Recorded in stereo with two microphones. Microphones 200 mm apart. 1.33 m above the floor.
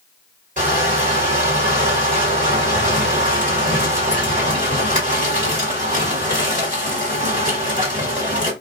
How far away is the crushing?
About 1.6 m.